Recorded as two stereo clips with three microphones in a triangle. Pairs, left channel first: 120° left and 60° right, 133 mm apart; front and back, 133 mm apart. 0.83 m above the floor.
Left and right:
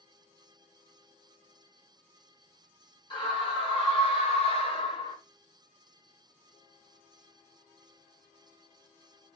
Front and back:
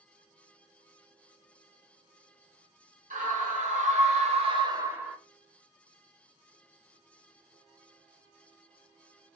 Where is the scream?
170° left, 1.7 m; by 5.2 s 95° left, 0.7 m.